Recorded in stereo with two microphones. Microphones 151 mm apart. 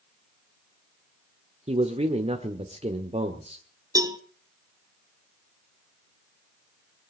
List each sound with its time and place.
1.7 s a man speaking: 45° right (ahead or behind), 1.4 m
4.0 s a cowbell: 25° right (ahead or behind), 0.9 m